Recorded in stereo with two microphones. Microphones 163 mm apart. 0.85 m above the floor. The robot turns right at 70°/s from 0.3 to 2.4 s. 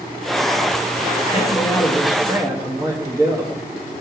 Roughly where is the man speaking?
Behind left.